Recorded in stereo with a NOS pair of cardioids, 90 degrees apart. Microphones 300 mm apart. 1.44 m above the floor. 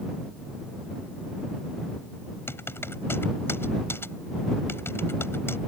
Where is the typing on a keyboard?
10° left.